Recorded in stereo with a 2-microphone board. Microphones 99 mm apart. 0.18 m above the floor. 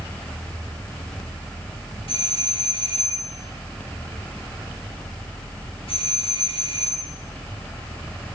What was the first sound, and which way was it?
A doorbell, 65° left (ahead or behind).